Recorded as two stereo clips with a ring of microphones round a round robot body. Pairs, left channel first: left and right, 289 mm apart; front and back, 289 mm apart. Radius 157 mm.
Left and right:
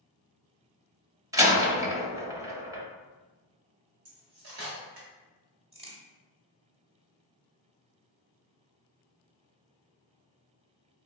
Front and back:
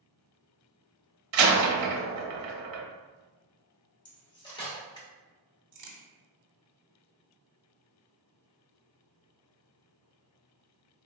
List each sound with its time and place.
1.3 s a door slam: 170° right, 0.9 m
4.0 s cutlery clinking: 75° right, 1.7 m
5.7 s a crack: 160° right, 1.2 m